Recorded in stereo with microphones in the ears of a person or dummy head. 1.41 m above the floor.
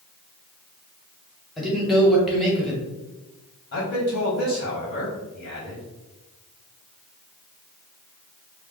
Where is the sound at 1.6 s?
Centre (ahead or behind), 1.1 m.